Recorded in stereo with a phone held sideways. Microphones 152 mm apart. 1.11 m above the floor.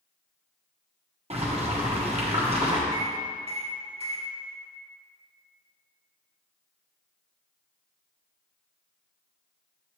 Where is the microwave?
45° right (ahead or behind), 2.5 m.